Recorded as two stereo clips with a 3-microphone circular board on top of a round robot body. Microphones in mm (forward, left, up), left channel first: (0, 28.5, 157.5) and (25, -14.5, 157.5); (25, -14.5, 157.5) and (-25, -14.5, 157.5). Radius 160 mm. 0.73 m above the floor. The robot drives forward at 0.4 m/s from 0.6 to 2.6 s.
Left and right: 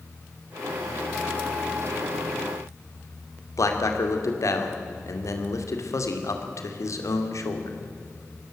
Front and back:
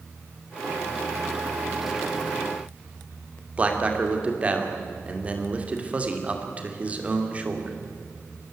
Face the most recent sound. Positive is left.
turn(degrees=115)